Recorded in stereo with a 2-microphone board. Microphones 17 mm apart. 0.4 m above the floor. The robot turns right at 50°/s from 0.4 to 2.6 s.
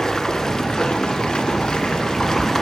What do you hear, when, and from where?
0.0 s running water: 40° left, 1.2 m; by 2.6 s 150° left, 1.2 m